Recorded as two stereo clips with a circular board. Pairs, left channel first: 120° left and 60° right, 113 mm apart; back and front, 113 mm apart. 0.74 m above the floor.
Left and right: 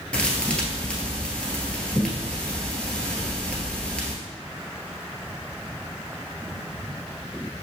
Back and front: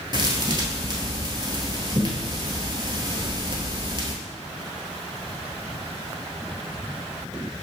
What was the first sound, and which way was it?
A thud, 40° left.